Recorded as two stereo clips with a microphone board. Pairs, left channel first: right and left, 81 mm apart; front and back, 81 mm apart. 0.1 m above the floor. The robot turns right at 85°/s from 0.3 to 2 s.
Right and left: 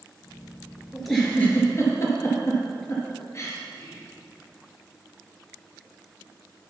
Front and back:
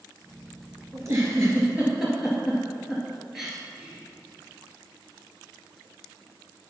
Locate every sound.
0.9 s a giggle: 170° left, 2 m; by 3.6 s 100° right, 2 m
3.7 s whispering: 115° right, 2.5 m